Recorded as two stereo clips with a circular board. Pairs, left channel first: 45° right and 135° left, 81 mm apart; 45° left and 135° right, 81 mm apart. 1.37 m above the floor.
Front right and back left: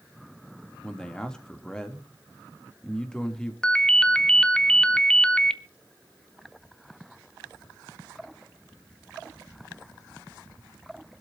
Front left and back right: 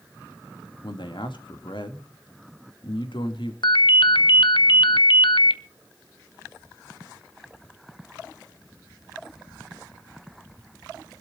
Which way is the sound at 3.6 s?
35° left.